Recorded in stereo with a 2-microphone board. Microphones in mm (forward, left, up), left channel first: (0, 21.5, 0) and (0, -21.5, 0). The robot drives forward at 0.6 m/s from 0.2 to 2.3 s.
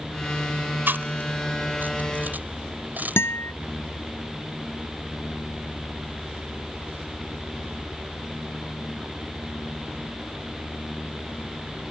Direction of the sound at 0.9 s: 55° right (ahead or behind).